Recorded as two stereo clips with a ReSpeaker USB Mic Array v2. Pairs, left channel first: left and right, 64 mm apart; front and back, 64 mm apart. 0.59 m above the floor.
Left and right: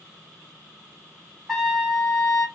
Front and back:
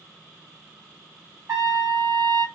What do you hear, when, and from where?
1.5 s a trumpet: straight behind, 1.5 m